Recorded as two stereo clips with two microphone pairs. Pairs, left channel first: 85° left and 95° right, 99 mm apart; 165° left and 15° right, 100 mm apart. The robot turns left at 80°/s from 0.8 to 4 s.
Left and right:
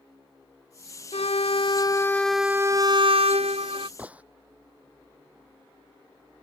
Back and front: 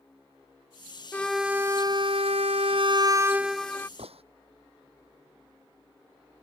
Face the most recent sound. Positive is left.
turn(degrees=-20)